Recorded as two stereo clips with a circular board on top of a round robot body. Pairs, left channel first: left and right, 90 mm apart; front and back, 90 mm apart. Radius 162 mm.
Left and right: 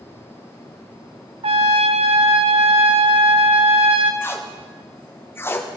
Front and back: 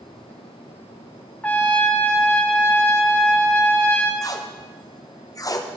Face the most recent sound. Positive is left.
turn(degrees=35)